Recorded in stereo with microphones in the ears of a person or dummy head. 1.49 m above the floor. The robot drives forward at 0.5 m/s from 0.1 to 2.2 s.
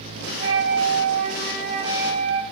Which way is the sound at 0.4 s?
40° right (ahead or behind).